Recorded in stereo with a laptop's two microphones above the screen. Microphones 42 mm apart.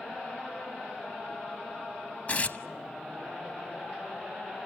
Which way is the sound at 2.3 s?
40° left (ahead or behind).